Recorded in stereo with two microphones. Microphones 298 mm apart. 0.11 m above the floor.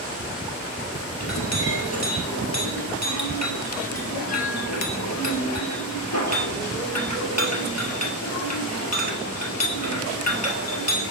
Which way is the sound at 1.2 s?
60° left (ahead or behind).